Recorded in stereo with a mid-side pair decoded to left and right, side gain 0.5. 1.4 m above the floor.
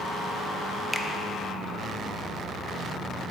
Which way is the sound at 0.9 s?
10° left.